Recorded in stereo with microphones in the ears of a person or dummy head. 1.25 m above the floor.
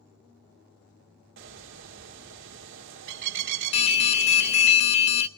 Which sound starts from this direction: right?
A bird, at 1.4 s.